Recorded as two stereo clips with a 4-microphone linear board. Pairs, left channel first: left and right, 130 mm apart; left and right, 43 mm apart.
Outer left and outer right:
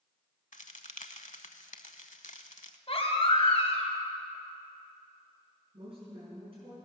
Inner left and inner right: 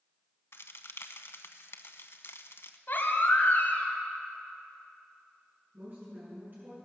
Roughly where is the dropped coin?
I don't hear a dropped coin.